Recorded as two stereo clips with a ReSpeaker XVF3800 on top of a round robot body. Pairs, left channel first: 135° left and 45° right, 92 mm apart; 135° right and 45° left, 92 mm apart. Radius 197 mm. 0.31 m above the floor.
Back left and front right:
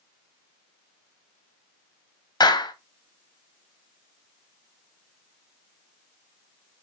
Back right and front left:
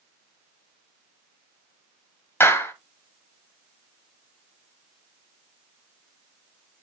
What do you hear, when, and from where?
2.4 s a clap: 165° left, 2 m